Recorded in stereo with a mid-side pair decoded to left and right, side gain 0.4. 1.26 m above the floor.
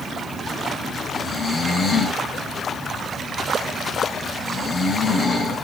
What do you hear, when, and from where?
1.1 s snoring: 50° left, 10 m